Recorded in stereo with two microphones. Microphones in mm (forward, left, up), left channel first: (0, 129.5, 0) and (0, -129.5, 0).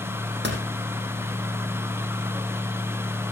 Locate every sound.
0.4 s a door slam: 45° right (ahead or behind), 4.5 m